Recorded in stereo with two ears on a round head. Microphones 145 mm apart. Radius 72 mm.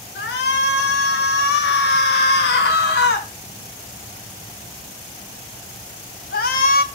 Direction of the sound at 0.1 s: 70° left (ahead or behind).